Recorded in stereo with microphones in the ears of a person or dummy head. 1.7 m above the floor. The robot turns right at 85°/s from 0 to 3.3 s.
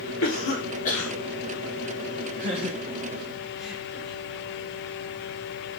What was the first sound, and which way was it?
A cough, 75° left (ahead or behind).